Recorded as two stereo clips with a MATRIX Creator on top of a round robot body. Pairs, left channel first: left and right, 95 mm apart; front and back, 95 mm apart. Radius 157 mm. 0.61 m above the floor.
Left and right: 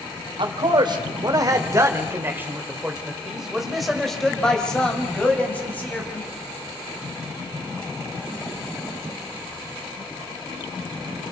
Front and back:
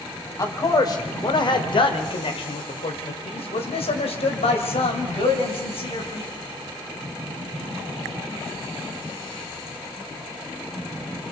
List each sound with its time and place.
0.4 s a man speaking: 55° right, 3 m; by 6.3 s 20° left, 5 m